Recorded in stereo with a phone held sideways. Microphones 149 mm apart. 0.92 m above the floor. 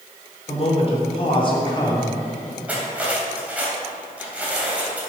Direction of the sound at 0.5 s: 45° left (ahead or behind).